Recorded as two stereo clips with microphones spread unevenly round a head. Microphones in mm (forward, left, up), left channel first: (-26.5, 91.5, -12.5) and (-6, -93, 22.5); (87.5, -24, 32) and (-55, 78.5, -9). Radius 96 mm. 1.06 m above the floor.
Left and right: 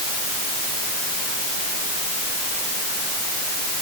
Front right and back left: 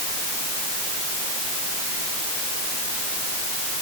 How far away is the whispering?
No whispering in this recording.